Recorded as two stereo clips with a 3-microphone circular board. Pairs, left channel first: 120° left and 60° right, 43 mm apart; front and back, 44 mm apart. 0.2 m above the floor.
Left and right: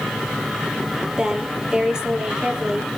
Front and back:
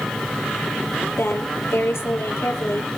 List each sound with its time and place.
1.2 s a woman speaking: 15° left, 5 m